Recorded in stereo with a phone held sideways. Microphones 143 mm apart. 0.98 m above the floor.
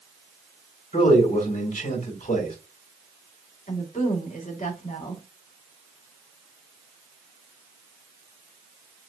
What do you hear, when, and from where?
0.9 s a man speaking: 65° left (ahead or behind), 2.5 m
3.7 s a woman speaking: 60° left (ahead or behind), 1.9 m